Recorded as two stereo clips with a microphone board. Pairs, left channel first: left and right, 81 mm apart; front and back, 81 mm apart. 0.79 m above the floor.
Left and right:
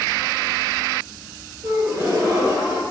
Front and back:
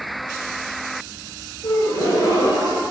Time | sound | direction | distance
1.6 | a gasp | 40° right | 3 m